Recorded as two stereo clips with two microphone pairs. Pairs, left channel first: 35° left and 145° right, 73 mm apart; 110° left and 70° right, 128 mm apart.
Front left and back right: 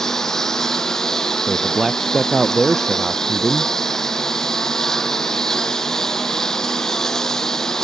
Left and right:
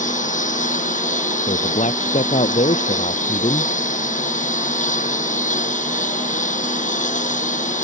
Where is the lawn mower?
120° left.